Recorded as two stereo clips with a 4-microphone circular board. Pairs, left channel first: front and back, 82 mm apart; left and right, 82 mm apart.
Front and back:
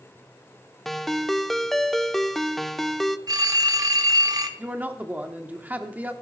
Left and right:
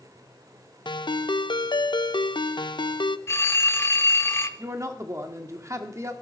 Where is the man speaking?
120° right, 1.3 m.